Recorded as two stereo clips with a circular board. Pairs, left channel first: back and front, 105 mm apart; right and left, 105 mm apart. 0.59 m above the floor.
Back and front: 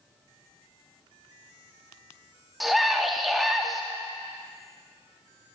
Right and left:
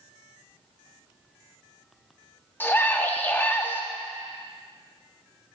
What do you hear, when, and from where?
2.6 s a scream: 85° right, 0.6 m